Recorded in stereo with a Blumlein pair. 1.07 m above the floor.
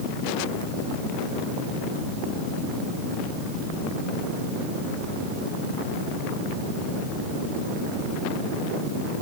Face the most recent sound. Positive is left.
No sound to turn to.